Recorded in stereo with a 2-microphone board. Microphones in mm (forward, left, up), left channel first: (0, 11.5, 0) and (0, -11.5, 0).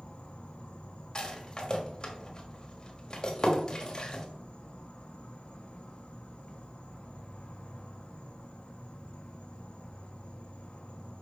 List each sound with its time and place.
0.0 s an insect: 50° left (ahead or behind), 1.2 m
1.1 s a rattle: 30° left (ahead or behind), 1.4 m